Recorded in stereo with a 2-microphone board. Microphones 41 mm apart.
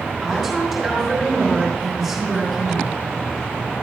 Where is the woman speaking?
Centre (ahead or behind), 5.5 m.